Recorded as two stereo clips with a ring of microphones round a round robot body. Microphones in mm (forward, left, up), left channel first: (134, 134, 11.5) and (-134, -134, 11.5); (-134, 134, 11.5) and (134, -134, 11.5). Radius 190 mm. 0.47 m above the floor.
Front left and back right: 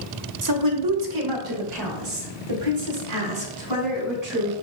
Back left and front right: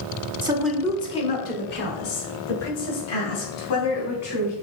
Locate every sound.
0.4 s a woman speaking: 115° right, 1.1 m; by 4.5 s 175° right, 4.5 m